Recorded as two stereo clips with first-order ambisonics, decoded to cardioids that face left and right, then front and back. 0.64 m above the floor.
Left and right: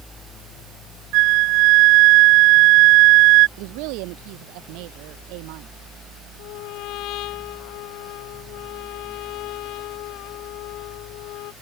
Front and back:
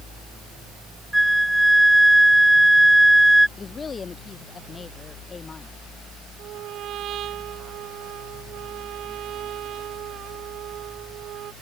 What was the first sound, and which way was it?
A flute, 95° right.